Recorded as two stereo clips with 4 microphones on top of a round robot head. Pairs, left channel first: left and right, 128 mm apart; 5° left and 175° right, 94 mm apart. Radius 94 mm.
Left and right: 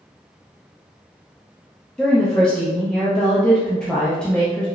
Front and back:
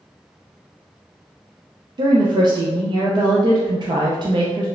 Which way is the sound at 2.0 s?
170° left.